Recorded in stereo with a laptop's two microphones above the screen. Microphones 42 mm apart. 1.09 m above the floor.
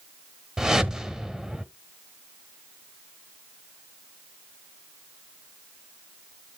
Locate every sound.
0.6 s a whoosh: 15° right (ahead or behind), 1.4 m